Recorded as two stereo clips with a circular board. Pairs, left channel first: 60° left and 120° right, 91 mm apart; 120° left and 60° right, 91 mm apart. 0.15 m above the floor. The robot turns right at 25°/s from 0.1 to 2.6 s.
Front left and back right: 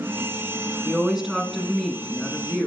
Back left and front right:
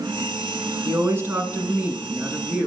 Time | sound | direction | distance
0.8 | a woman speaking | 50° right | 1.2 m